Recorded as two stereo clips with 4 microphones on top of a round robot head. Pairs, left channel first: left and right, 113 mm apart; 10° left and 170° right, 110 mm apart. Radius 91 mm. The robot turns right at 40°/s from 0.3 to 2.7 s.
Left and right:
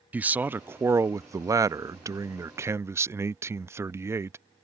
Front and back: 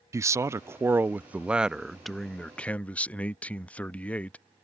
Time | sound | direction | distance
0.1 | a man speaking | 150° right | ?